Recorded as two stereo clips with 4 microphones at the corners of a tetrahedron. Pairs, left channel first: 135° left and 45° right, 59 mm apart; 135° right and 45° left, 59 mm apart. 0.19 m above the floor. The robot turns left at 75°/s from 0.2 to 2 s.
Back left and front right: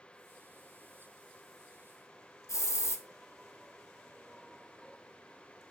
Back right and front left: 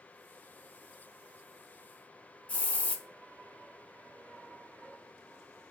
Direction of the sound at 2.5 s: 160° left.